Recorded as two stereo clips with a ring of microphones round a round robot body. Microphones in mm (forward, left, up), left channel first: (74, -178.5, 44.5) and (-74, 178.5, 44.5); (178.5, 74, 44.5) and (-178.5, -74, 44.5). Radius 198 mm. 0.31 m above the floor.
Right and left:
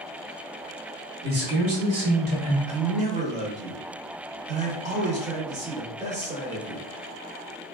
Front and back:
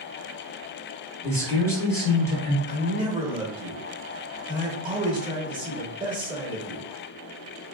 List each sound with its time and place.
1.2 s a man speaking: 95° left, 1.0 m; by 2.6 s 105° left, 1.4 m
2.7 s a man speaking: 150° left, 1.0 m